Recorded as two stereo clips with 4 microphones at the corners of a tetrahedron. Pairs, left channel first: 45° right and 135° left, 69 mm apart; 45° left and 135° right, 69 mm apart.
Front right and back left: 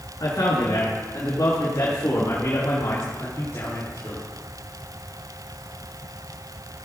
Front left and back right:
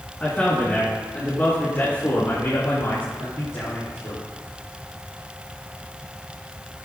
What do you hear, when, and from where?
0.2 s a man speaking: 25° right, 3.5 m; by 4.2 s 15° left, 5 m